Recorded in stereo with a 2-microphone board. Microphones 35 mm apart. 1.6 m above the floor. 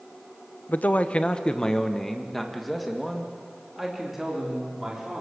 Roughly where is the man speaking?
Left.